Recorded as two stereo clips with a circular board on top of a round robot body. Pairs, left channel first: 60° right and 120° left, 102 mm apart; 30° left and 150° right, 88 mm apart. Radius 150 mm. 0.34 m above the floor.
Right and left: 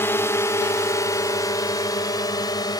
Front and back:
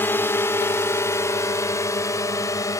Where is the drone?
15° right.